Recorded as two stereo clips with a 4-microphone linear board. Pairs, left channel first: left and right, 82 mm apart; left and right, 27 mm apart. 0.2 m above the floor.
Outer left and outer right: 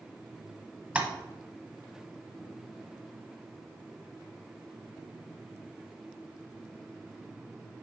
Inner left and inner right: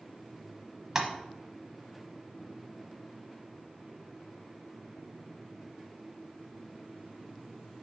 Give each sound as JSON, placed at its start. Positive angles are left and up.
{"t": 0.9, "sound": "tapping", "side_deg": -15, "distance_m": 0.9}